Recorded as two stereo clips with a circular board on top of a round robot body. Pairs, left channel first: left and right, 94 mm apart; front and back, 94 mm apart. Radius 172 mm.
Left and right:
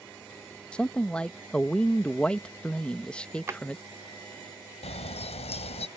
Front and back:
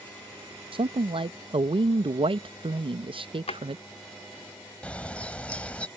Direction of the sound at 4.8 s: 80° left.